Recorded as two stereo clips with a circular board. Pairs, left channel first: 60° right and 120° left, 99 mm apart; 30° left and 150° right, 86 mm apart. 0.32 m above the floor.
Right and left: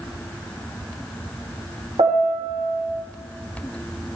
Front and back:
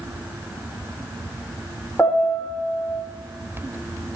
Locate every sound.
2.0 s a piano: 100° left, 4.5 m